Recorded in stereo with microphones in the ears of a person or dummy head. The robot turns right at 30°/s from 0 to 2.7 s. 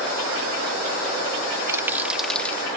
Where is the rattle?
20° right (ahead or behind); by 2.6 s 10° left (ahead or behind).